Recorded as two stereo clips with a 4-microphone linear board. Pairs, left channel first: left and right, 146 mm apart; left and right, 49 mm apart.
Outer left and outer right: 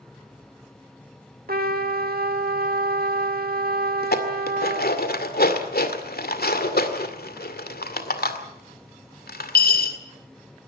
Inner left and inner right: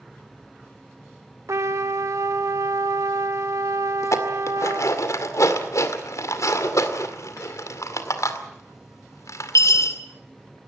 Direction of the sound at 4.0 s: 90° left.